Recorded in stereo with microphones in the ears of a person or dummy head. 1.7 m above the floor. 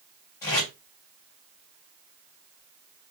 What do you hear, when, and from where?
0.4 s tape being pulled: 15° left (ahead or behind), 1.6 m